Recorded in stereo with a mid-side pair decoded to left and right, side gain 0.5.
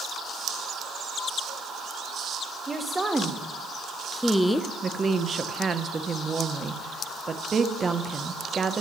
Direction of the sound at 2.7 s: 15° right.